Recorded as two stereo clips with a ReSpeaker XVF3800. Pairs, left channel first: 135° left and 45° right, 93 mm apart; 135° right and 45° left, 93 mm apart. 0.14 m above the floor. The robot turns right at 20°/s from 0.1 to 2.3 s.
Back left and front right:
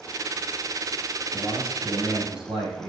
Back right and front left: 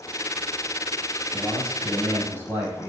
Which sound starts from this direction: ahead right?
A man speaking, at 1.3 s.